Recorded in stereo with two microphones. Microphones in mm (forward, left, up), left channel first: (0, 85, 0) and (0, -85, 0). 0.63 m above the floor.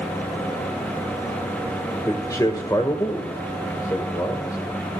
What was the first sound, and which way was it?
A man speaking, 20° left (ahead or behind).